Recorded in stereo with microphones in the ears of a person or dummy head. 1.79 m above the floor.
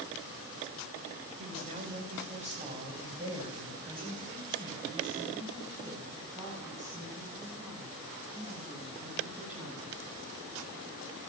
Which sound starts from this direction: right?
A woman speaking, at 1.4 s.